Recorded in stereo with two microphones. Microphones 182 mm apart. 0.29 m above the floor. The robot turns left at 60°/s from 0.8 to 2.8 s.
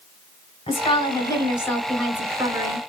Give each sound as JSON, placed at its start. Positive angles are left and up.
{"t": 0.7, "sound": "a woman speaking", "azimuth_deg": 70, "distance_m": 1.3}